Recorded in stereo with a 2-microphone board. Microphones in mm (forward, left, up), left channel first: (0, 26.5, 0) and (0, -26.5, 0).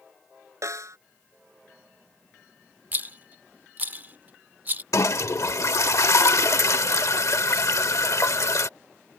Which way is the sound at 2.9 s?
35° right (ahead or behind).